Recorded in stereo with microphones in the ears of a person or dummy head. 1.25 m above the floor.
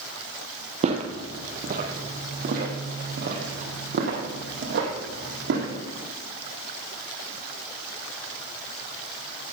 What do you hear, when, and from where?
0.8 s footsteps: 40° right (ahead or behind), 2 m; by 5.7 s 65° right (ahead or behind), 4.5 m